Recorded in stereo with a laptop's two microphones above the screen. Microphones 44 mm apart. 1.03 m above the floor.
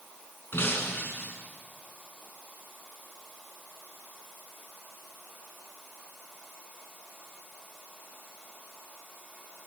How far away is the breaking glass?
About 6 m.